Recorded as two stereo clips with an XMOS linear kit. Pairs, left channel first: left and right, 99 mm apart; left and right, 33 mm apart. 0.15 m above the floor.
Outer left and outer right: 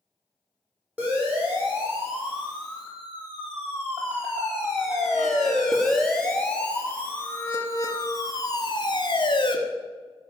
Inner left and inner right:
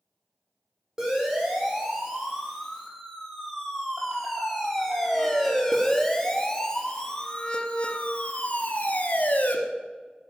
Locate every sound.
1.0 s a siren: 15° right (ahead or behind), 7 m; by 9.6 s 55° left (ahead or behind), 2 m